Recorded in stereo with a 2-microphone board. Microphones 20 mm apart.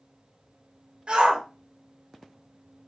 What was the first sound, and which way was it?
A shout, 60° right (ahead or behind).